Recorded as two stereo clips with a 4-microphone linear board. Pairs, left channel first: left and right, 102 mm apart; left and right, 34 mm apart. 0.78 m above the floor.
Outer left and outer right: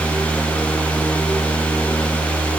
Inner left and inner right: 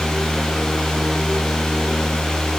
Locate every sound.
Only background noise.